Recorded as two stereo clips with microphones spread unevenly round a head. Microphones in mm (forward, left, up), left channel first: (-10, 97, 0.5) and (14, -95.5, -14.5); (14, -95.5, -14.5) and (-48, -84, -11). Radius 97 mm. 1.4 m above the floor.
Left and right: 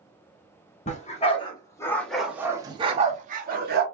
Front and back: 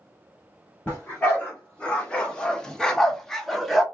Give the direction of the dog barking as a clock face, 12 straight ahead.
10 o'clock.